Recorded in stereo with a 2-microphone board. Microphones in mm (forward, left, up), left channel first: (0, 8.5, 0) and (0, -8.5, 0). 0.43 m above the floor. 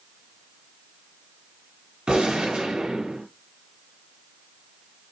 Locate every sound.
2.1 s a gunshot: 75° right (ahead or behind), 5 m